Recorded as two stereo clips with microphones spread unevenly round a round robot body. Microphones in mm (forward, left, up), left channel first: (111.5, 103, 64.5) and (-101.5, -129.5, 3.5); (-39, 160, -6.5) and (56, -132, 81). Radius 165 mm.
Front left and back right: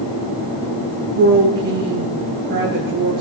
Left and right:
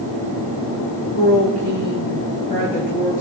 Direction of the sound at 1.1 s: 170° left.